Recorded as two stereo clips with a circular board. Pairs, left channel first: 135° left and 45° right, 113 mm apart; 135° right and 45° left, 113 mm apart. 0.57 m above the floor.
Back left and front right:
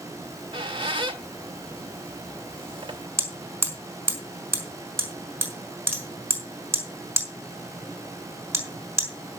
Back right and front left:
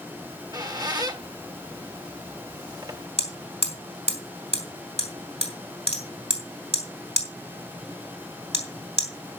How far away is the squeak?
About 1.7 m.